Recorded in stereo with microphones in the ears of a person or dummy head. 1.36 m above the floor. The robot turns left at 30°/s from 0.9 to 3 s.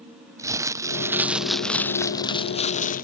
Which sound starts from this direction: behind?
Crumpling, at 0.4 s.